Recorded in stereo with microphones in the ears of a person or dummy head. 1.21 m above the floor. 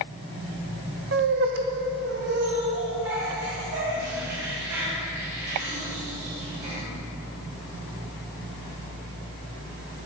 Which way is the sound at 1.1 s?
55° right (ahead or behind).